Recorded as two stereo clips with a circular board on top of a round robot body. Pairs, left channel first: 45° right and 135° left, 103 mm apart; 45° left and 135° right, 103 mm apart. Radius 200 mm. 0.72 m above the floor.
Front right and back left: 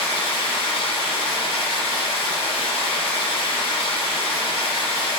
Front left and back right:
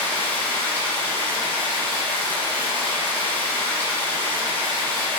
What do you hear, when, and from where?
0.0 s running water: 30° right, 1.0 m